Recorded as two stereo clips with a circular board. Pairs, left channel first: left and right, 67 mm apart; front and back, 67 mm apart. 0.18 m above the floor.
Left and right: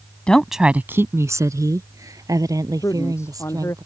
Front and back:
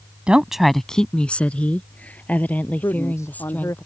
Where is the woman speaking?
135° left; by 3.8 s 65° right.